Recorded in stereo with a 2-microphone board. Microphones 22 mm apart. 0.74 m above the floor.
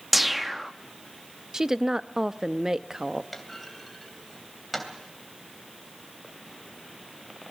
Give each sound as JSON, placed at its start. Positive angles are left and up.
{"t": 0.1, "sound": "a whoosh", "side_deg": -10, "distance_m": 0.5}
{"t": 1.5, "sound": "a woman speaking", "side_deg": -20, "distance_m": 0.5}
{"t": 3.3, "sound": "a clunk", "side_deg": 0, "distance_m": 3.0}